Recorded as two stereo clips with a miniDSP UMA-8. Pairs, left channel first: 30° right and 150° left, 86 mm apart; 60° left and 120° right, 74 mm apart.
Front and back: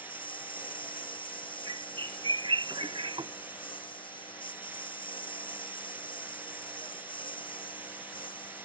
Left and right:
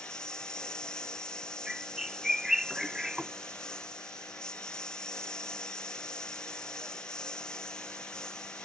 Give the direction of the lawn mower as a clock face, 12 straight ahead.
1 o'clock.